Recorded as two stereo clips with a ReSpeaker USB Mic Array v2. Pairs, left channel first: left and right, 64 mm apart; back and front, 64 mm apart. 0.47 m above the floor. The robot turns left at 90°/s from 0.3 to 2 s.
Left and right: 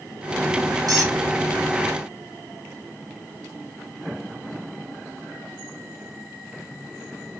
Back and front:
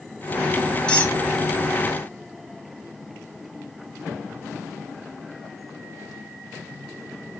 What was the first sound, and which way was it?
A squeak, 105° right.